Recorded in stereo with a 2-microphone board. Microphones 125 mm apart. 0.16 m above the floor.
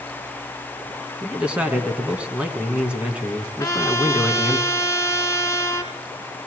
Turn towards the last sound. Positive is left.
turn(degrees=25)  # may be behind; listen again after turning